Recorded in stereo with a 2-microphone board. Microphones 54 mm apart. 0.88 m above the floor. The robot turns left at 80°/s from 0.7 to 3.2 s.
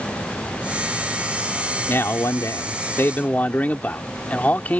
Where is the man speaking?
135° left; by 4.8 s 30° left.